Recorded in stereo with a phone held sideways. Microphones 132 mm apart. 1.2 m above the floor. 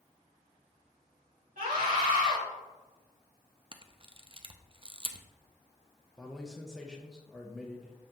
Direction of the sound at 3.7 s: 40° right (ahead or behind).